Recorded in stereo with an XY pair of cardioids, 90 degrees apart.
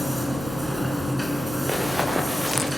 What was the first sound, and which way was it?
A machine running, straight ahead.